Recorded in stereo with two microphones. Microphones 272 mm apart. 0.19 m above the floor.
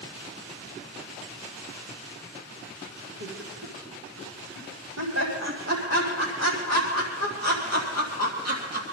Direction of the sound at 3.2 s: 60° right (ahead or behind).